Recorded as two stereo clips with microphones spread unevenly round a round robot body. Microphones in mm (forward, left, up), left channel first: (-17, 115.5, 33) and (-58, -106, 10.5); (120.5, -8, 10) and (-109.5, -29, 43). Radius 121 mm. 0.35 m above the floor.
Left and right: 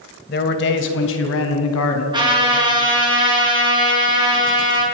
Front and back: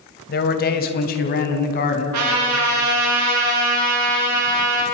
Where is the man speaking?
35° left, 2.5 m; by 2.0 s 55° left, 4 m.